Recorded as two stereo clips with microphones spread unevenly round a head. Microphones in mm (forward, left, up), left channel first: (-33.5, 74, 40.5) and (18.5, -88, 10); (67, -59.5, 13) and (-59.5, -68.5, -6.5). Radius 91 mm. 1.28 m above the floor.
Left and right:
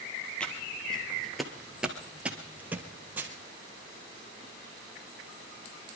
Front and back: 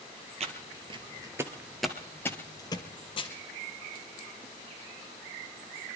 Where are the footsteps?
Straight behind, 1.6 m; by 3.3 s 15° left, 2.0 m.